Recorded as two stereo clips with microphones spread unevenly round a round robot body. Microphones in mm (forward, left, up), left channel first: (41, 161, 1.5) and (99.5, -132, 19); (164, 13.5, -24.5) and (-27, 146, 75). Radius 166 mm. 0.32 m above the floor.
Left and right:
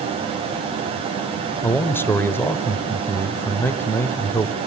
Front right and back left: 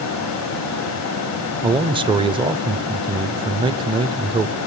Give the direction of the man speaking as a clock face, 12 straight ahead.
11 o'clock.